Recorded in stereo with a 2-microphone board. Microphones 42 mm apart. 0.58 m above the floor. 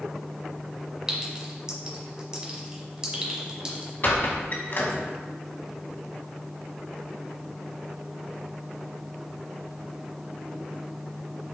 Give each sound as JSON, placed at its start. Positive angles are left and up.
{"t": 1.1, "sound": "a clink", "side_deg": -25, "distance_m": 1.2}
{"t": 4.0, "sound": "a squeak", "side_deg": 55, "distance_m": 0.9}